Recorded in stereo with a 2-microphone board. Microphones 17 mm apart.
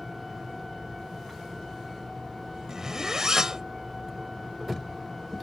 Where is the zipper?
30° right (ahead or behind).